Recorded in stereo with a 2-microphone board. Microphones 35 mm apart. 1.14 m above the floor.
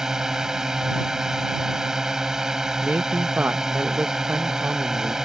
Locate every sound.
0.0 s a drone: 15° right (ahead or behind)
2.8 s a man speaking: 60° right (ahead or behind)